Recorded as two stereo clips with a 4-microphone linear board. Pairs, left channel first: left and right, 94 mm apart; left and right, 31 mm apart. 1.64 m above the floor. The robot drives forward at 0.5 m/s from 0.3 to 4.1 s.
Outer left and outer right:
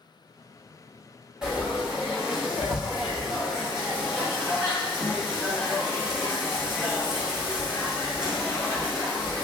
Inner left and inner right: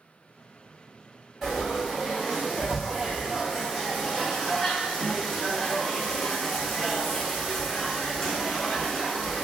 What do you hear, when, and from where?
1.4 s frying: 10° right (ahead or behind), 1.4 m